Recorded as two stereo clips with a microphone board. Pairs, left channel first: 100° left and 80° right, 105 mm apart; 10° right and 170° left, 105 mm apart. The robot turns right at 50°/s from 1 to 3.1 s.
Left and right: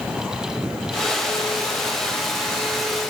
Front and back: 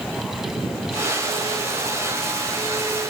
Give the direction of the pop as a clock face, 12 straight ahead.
No pop in this recording.